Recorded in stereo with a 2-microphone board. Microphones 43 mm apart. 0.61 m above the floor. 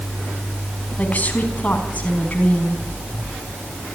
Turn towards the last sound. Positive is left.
turn(degrees=35)  # may be behind; listen again after turning